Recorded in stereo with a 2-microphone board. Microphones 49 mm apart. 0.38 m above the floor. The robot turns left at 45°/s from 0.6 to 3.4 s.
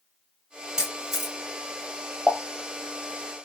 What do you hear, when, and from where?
0.8 s a camera shutter: 10° right (ahead or behind), 1.0 m; by 1.4 s centre (ahead or behind), 1.0 m
2.3 s a pop: 20° left (ahead or behind), 0.7 m; by 2.4 s 15° left (ahead or behind), 0.7 m